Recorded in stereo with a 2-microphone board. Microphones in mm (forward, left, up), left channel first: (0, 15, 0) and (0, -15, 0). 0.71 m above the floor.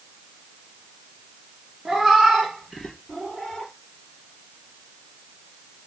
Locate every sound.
1.9 s a cat meowing: 15° right (ahead or behind), 1.2 m; by 3.7 s 15° left (ahead or behind), 1.8 m